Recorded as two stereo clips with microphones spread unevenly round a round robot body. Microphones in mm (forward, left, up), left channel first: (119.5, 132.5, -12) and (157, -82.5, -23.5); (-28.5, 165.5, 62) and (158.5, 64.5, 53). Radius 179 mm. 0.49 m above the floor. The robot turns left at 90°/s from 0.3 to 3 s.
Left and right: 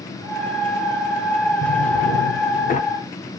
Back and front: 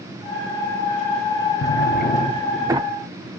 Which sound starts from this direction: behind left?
A drawer, at 1.6 s.